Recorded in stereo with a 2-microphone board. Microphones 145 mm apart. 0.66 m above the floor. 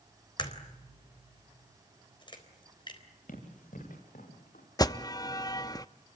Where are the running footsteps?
65° left (ahead or behind), 9 m; by 4.7 s 60° left (ahead or behind), 8.5 m.